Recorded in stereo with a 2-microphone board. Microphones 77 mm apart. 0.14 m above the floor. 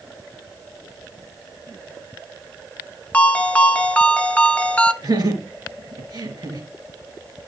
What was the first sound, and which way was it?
A ringtone, 20° left (ahead or behind).